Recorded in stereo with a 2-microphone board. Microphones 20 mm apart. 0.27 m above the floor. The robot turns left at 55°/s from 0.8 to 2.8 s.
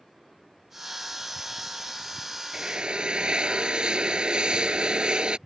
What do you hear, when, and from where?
2.5 s a drill: 40° right (ahead or behind); by 5.4 s 55° right (ahead or behind)